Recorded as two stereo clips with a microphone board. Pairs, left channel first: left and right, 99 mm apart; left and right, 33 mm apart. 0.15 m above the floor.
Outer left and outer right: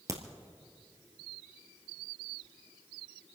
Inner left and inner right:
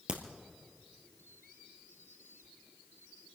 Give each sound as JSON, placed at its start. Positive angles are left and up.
{"t": 0.1, "sound": "a crack", "side_deg": -35, "distance_m": 1.8}